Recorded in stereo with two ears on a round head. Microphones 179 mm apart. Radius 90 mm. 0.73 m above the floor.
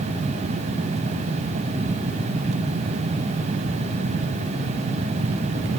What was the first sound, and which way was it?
Only background noise.